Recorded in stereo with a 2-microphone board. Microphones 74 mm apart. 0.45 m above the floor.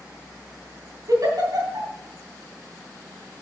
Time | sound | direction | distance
1.1 | a giggle | 55° right (ahead or behind) | 3 m